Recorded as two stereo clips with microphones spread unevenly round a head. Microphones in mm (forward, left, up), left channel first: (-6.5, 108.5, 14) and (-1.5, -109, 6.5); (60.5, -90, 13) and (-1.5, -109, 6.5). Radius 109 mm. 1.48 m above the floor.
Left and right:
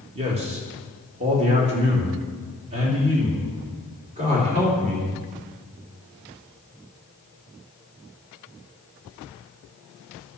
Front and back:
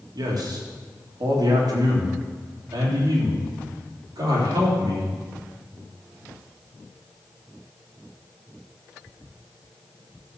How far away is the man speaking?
About 2.5 m.